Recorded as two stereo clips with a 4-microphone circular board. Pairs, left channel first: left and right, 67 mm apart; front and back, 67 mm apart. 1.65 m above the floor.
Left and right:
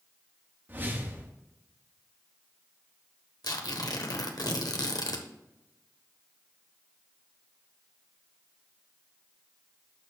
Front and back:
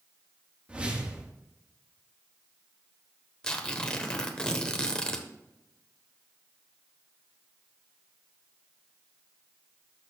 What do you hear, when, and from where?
0.7 s a whoosh: 120° right, 1.1 m
3.4 s tearing paper: 80° left, 1.1 m